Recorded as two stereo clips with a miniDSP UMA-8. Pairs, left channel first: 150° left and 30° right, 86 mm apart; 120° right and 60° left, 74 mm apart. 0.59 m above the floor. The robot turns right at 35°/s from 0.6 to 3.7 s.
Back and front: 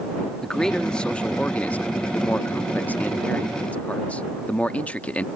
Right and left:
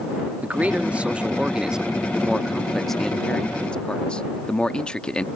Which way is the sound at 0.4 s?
80° left.